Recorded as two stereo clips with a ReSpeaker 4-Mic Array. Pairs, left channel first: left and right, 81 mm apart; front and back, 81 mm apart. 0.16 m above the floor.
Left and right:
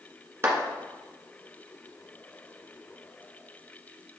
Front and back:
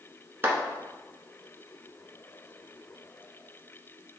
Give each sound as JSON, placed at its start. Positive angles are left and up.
{"t": 0.4, "sound": "a clap", "azimuth_deg": -130, "distance_m": 1.5}